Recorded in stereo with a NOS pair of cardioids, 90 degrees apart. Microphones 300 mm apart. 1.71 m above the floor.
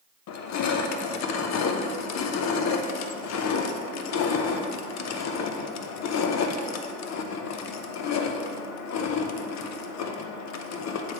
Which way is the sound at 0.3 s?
65° left.